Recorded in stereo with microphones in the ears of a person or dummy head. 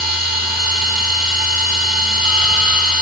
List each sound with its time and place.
0.0 s a machine running: 40° right (ahead or behind), 5 m